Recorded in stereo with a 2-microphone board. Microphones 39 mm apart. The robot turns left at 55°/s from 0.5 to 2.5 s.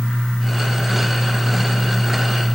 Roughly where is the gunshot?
I don't hear a gunshot.